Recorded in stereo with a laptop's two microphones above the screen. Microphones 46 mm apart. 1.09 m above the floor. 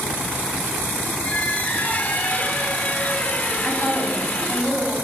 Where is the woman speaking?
5° left (ahead or behind), 8.5 m.